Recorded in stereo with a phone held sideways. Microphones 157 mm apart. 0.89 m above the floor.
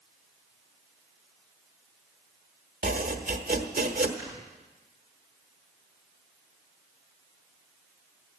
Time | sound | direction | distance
2.8 | chopping | 80° right | 1.3 m
4.2 | snoring | 25° right (ahead or behind) | 10 m